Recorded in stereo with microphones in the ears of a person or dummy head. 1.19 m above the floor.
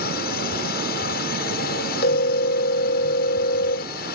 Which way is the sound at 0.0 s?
50° left (ahead or behind).